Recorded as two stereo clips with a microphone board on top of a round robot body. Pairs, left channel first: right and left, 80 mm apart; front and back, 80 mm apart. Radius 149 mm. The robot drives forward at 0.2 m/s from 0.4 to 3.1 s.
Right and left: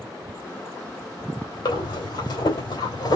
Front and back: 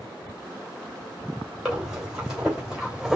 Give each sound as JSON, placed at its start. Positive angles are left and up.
{"t": 1.6, "sound": "breathing", "azimuth_deg": -95, "distance_m": 3.0}